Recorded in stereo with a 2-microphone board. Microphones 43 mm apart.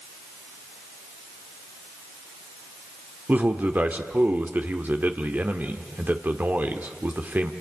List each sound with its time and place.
3.3 s a man speaking: 40° right (ahead or behind), 1.6 m